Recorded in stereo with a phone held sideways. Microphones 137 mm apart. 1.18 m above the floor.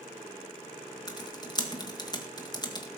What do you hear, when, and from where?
1.1 s typing on a keyboard: 30° left (ahead or behind), 1.8 m